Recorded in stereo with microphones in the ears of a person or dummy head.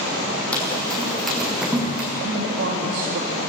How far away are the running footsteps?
About 4.5 m.